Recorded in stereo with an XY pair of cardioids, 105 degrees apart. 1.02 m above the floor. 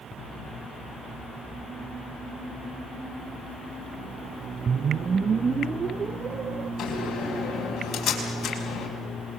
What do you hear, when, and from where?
4.7 s a whoosh: 40° right, 0.5 m
6.8 s a door slam: 60° left, 5.5 m